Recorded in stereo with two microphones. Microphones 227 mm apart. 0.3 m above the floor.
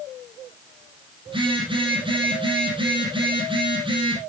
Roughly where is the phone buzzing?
Right.